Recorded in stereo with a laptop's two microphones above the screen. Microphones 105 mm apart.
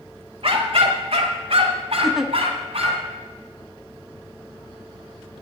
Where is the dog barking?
65° right (ahead or behind), 1.3 m; by 3.0 s 75° right (ahead or behind), 2.5 m.